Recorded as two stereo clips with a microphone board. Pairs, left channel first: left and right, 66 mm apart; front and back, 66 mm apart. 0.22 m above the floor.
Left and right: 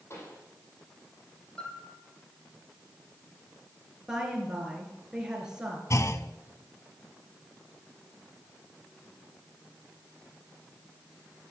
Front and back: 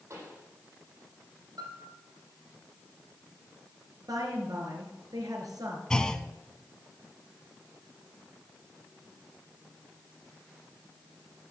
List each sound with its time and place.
0.1 s a pop: 135° left, 6.5 m
1.6 s a piano: 165° left, 4.5 m
4.1 s a woman speaking: 170° right, 3 m
5.9 s a clunk: 75° left, 0.7 m